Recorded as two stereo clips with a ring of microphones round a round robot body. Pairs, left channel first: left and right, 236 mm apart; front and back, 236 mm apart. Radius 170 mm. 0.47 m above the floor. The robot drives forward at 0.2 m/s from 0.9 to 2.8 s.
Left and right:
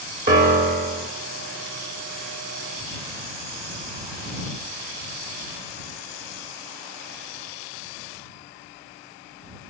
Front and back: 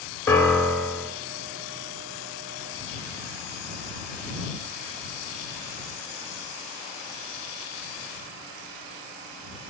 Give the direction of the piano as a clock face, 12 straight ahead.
3 o'clock.